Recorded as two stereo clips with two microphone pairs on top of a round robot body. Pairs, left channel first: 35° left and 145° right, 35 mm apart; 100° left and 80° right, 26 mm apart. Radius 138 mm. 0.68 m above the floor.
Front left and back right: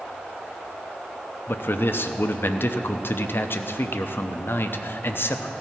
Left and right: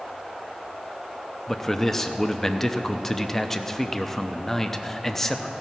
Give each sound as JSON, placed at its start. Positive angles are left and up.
{"t": 1.5, "sound": "a man speaking", "azimuth_deg": 20, "distance_m": 0.9}